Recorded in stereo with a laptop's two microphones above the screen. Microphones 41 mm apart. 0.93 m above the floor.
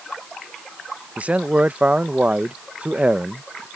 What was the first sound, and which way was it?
A man speaking, 35° right (ahead or behind).